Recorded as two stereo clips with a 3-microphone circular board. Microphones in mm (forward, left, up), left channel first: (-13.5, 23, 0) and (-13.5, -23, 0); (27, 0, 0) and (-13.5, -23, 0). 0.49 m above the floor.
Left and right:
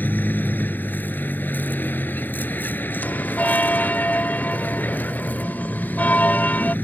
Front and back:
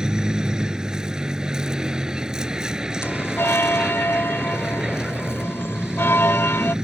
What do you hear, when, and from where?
0.0 s a vehicle: 135° left
3.0 s a bell: 45° left